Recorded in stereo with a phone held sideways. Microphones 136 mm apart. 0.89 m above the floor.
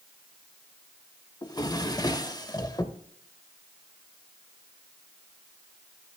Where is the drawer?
30° left (ahead or behind), 0.7 m.